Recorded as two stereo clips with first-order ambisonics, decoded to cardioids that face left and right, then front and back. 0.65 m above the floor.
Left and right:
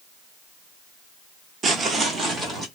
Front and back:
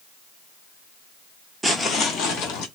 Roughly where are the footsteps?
Right.